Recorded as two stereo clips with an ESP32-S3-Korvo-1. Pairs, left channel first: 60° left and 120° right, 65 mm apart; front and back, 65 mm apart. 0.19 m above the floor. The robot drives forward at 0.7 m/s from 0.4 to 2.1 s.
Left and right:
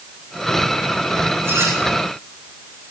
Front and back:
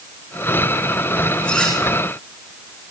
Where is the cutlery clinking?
75° right, 10 m.